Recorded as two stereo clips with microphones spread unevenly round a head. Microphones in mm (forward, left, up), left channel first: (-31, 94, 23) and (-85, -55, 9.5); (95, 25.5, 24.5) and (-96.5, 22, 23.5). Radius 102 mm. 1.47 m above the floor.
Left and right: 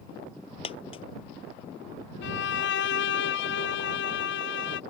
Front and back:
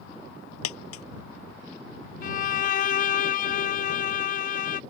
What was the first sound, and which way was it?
A dropped coin, 5° left.